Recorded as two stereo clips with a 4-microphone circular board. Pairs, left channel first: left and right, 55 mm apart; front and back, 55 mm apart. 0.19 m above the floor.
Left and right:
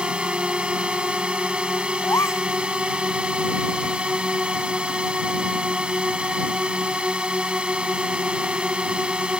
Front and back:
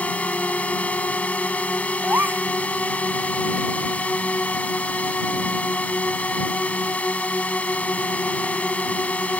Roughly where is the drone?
Ahead right.